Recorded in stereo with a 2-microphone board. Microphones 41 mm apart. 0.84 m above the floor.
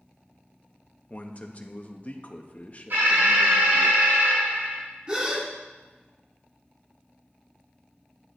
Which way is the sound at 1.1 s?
35° left (ahead or behind).